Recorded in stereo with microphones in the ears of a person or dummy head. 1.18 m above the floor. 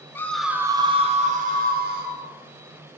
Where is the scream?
15° left (ahead or behind), 0.7 m; by 2.2 s 55° right (ahead or behind), 1.7 m.